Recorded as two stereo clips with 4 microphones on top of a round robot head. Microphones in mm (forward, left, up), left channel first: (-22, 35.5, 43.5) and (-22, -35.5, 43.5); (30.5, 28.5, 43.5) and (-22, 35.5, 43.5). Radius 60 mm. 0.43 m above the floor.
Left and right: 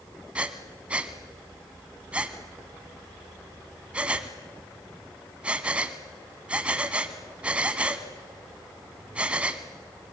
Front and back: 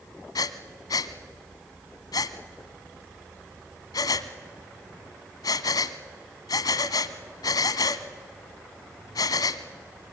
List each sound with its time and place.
0.3 s breathing: 15° right, 1.0 m